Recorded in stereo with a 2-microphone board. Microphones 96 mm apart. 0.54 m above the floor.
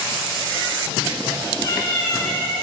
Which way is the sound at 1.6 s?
50° left (ahead or behind).